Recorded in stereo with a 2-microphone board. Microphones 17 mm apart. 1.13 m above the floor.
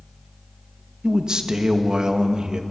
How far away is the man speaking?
About 1.0 m.